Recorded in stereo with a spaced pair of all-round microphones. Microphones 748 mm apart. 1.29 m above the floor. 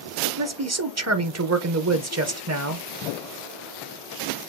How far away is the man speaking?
About 0.6 m.